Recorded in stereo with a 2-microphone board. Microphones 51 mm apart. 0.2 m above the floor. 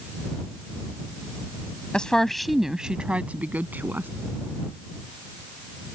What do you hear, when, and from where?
1.9 s a woman speaking: 20° left (ahead or behind); by 4.1 s 45° right (ahead or behind)